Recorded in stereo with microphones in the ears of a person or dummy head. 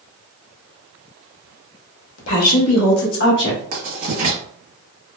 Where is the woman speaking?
80° left, 1.3 m; by 3.6 s 50° left (ahead or behind), 1.5 m.